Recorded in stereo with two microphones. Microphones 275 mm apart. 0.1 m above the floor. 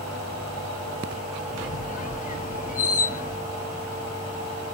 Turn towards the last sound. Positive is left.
turn(degrees=30)  # may be behind; listen again after turning